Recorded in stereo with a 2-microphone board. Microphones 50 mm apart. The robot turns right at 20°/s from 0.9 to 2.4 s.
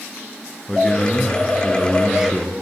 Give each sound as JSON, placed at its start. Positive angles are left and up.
{"t": 0.7, "sound": "a man speaking", "azimuth_deg": 165, "distance_m": 3.0}